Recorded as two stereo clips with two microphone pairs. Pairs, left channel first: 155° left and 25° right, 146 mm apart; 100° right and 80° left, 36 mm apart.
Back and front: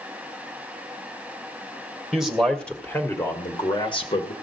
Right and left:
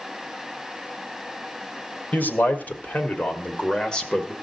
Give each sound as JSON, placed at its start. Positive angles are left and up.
{"t": 2.1, "sound": "a man speaking", "azimuth_deg": -115, "distance_m": 1.8}